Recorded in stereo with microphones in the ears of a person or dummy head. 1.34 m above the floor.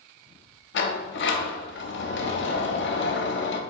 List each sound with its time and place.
0.7 s a sliding door: 55° left (ahead or behind), 0.5 m